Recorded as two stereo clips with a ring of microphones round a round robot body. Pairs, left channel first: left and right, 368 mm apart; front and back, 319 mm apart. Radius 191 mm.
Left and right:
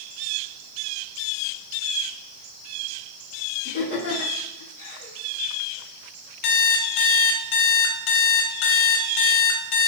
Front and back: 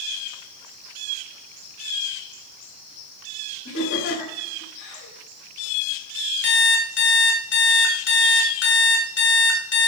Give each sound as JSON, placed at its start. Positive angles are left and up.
{"t": 3.6, "sound": "laughter", "azimuth_deg": 25, "distance_m": 3.0}
{"t": 6.4, "sound": "an alarm clock", "azimuth_deg": 55, "distance_m": 1.7}